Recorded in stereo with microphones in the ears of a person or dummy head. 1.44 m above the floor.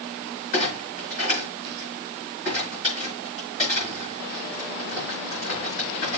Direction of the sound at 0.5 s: 40° left (ahead or behind).